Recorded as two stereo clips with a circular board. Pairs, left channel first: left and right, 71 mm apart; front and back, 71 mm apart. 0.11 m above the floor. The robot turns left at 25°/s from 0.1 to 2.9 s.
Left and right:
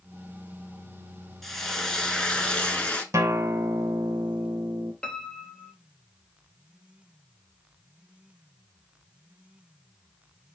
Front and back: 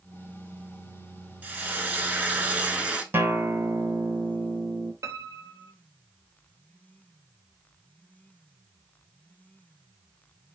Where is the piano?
160° left, 0.5 m.